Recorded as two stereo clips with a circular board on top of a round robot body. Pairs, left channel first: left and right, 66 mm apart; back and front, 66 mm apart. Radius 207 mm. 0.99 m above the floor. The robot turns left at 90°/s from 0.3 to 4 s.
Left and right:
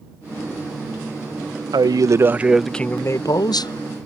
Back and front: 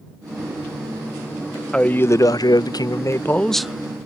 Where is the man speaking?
100° right; by 4.0 s 55° left.